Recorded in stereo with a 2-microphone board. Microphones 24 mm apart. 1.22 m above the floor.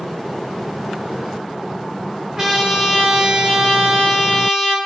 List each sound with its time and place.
2.4 s a trumpet: 25° right (ahead or behind), 4.5 m